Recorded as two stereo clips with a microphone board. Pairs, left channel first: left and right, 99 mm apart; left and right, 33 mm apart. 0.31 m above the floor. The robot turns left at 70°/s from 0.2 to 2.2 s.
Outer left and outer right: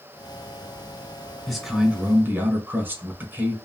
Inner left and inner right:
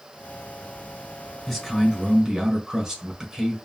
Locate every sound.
1.5 s a man speaking: centre (ahead or behind), 1.1 m; by 3.6 s 20° right (ahead or behind), 1.1 m